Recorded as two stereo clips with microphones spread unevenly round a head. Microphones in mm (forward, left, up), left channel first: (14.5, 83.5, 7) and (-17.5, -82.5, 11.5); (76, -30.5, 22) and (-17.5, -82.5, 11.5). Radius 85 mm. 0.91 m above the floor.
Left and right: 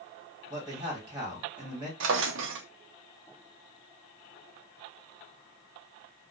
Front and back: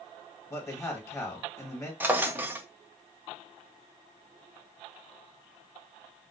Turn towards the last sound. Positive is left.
turn(degrees=-75)